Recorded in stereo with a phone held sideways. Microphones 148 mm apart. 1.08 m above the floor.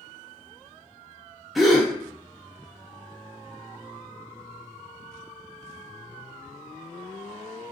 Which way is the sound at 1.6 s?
Centre (ahead or behind).